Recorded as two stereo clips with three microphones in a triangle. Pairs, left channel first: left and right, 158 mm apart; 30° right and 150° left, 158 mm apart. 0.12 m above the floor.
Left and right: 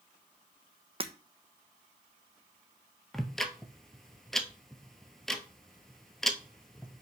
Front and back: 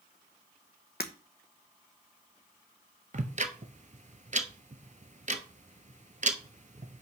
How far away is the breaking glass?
About 0.9 m.